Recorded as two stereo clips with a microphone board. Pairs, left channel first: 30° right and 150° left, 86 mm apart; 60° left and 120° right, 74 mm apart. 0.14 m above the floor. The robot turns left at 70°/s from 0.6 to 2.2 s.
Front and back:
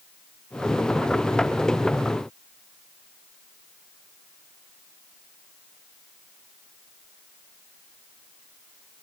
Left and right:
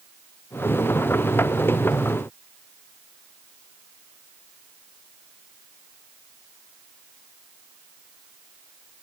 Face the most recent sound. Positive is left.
No sound to turn to.